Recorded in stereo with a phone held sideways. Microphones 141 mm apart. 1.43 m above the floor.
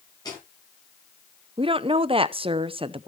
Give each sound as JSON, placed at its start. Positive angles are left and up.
{"t": 0.2, "sound": "footsteps", "side_deg": 30, "distance_m": 10.0}
{"t": 1.6, "sound": "a woman speaking", "side_deg": -40, "distance_m": 0.6}